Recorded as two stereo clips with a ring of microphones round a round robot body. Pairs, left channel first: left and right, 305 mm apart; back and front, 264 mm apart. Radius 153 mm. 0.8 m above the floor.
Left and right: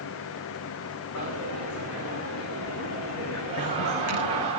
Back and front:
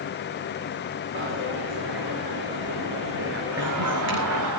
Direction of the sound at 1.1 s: 45° left.